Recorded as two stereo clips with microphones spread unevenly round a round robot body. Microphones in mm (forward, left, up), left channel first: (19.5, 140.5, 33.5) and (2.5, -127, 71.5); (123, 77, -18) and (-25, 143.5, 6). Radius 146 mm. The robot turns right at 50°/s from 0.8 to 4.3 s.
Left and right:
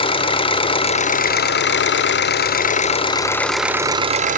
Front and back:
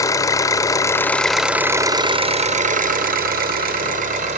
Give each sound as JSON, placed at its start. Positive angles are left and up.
{"t": 0.0, "sound": "an engine running", "azimuth_deg": 30, "distance_m": 0.7}